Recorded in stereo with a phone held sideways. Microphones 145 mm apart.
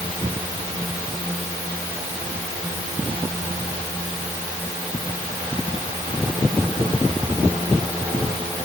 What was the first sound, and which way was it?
Only background noise.